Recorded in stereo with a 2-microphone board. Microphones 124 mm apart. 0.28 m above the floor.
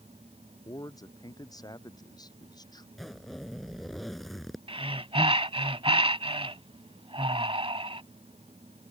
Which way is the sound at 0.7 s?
30° left (ahead or behind).